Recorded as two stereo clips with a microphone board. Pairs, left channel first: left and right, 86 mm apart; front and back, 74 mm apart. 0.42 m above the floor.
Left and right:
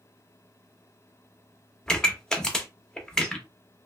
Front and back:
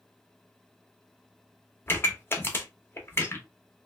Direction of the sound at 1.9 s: 15° left.